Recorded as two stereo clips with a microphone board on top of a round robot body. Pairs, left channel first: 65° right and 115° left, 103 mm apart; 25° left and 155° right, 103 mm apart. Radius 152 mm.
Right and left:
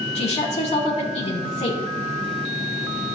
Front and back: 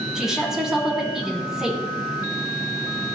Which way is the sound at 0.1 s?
75° right.